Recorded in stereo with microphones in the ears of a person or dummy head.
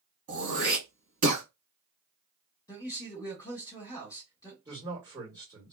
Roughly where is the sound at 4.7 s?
Centre.